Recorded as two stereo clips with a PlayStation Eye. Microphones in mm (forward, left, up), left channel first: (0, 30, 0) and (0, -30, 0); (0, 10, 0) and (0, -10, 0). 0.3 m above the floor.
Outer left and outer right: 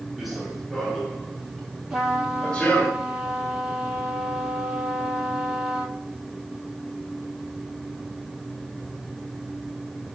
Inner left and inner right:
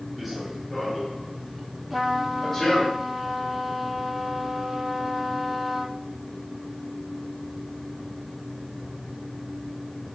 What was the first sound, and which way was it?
Running footsteps, centre (ahead or behind).